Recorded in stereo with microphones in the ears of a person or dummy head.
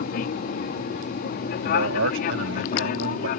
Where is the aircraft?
40° left (ahead or behind).